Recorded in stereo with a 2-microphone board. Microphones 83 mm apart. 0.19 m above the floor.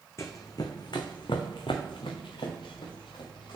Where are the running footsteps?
35° left (ahead or behind), 0.8 m; by 3.6 s 75° left (ahead or behind), 1.9 m.